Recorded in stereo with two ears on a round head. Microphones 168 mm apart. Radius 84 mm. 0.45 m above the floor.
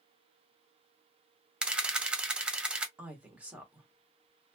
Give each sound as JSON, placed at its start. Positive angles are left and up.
{"t": 1.6, "sound": "a camera shutter", "side_deg": -5, "distance_m": 0.5}
{"t": 3.0, "sound": "a woman speaking", "side_deg": -5, "distance_m": 0.9}